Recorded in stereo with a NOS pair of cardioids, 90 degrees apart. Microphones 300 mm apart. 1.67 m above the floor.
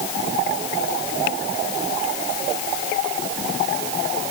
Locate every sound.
Only background noise.